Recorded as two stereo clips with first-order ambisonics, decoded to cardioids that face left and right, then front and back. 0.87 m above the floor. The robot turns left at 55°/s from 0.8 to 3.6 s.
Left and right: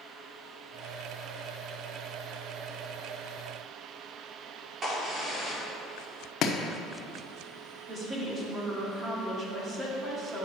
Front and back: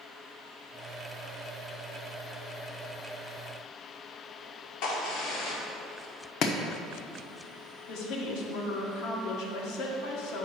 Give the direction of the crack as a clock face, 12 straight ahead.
1 o'clock.